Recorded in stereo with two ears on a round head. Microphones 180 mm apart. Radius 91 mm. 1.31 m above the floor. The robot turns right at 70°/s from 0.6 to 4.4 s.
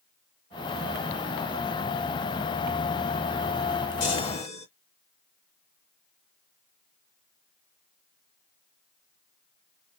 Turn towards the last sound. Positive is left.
turn(degrees=80)